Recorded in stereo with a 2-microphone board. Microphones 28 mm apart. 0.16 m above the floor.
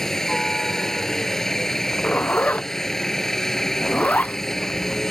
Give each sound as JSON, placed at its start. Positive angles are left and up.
{"t": 0.0, "sound": "a helicopter", "side_deg": 15}
{"t": 1.7, "sound": "a zipper", "side_deg": 60}